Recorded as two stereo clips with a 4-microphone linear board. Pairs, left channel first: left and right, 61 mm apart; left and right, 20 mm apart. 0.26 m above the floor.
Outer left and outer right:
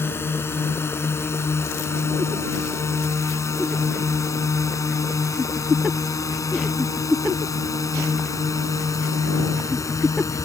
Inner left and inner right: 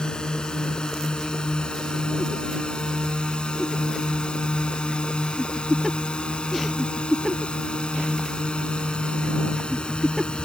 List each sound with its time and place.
0.0 s a drone: 40° left (ahead or behind); by 10.5 s 60° left (ahead or behind)